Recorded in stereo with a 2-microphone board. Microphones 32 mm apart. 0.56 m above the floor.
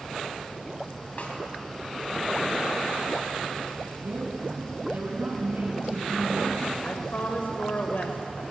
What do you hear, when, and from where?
1.2 s a snare drum: 45° left (ahead or behind), 4 m
4.0 s a woman speaking: 75° right (ahead or behind), 6.5 m
6.8 s a woman speaking: 65° left (ahead or behind), 1.8 m